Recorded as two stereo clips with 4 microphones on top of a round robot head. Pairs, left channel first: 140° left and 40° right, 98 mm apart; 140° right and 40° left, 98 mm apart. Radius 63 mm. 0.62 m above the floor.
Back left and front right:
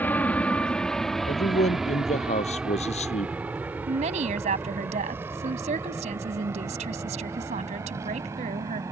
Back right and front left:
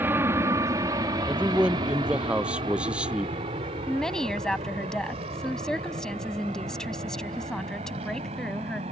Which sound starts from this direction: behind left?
A man speaking, at 1.3 s.